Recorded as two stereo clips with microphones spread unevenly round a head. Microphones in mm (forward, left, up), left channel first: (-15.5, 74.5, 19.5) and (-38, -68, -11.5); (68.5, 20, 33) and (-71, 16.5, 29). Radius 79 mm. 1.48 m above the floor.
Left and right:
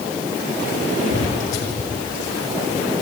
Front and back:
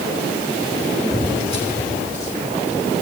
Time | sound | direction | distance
1.1 | footsteps | 50° left | 4 m